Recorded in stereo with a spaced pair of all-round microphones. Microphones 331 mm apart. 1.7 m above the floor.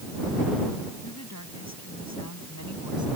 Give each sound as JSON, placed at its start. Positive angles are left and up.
{"t": 1.0, "sound": "a woman speaking", "side_deg": 55}